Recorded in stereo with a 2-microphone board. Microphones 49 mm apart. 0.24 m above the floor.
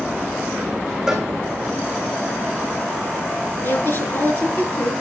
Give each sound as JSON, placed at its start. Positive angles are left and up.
{"t": 1.1, "sound": "a cowbell", "side_deg": -10, "distance_m": 3.0}
{"t": 3.6, "sound": "a woman speaking", "side_deg": 50, "distance_m": 3.5}